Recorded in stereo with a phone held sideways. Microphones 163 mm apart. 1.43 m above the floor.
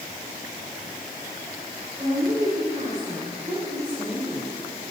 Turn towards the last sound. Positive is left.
turn(degrees=-40)  # may be behind; listen again after turning